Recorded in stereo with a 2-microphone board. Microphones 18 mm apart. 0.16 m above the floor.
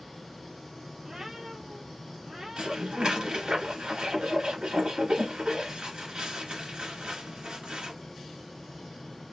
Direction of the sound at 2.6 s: 55° right (ahead or behind).